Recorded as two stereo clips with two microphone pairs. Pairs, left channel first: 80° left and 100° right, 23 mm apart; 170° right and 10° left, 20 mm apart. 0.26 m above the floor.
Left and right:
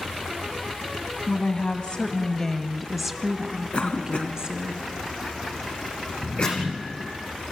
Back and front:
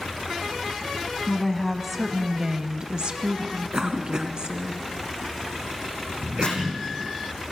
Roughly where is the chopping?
Behind left.